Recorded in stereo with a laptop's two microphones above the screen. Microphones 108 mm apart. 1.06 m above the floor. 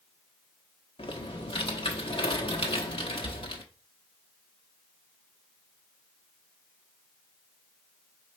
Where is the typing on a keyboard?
60° left (ahead or behind), 0.9 m.